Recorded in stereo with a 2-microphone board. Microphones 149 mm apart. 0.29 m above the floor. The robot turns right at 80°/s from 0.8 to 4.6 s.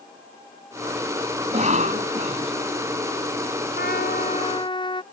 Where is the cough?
135° right; by 2.5 s 45° right.